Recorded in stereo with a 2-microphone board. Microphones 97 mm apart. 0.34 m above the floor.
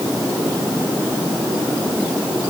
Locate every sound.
Only background noise.